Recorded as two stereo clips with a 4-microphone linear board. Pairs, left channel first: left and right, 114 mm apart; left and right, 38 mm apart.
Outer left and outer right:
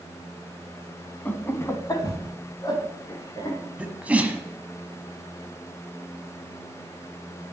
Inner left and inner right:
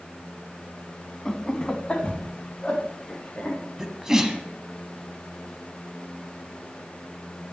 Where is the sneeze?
15° right (ahead or behind), 1.2 m.